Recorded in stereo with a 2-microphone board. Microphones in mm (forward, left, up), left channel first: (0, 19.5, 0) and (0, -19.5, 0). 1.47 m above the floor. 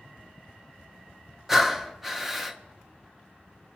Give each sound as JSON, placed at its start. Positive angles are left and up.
{"t": 1.5, "sound": "breathing", "side_deg": -10, "distance_m": 0.7}